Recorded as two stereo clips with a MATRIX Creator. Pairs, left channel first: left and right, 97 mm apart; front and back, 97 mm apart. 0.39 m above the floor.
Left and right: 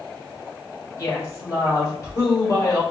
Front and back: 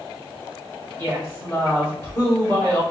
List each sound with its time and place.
1.0 s a woman speaking: 55° left, 1.3 m